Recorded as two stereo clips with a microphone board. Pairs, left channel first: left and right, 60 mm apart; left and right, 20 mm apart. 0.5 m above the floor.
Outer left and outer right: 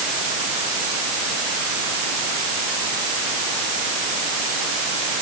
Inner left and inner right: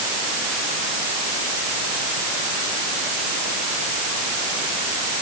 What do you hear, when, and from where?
Only background noise.